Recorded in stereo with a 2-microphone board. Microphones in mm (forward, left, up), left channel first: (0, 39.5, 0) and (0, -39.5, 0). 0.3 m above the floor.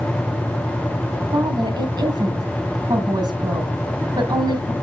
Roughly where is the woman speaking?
Right.